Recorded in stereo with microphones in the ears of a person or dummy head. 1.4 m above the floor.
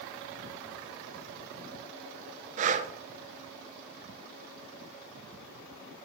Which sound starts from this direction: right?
Breathing, at 2.6 s.